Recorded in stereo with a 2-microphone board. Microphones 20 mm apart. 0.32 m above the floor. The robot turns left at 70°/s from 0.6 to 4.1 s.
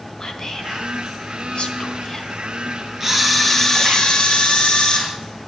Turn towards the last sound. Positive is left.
turn(degrees=130)